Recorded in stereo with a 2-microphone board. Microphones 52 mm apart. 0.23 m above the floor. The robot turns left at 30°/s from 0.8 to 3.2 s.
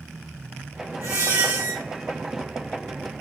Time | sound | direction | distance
1.0 | a squeak | 65° right (ahead or behind) | 1.5 m